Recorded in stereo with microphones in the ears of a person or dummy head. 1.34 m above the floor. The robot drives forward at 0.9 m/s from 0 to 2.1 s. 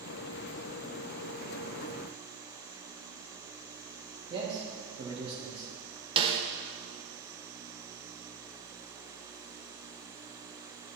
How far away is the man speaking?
About 1.8 m.